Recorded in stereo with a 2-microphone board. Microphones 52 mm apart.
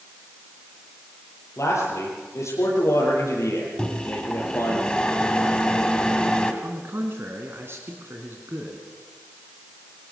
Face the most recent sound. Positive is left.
turn(degrees=-50)  # may be behind; listen again after turning